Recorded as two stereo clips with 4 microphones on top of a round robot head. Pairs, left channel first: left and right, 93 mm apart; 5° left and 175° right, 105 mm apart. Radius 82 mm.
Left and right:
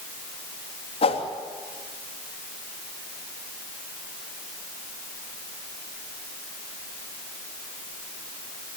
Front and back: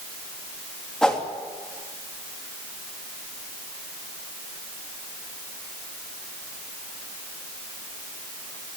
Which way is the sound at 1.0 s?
90° left.